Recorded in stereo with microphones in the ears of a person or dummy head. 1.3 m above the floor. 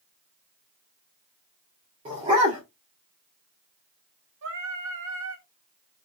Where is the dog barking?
30° right (ahead or behind), 1.1 m.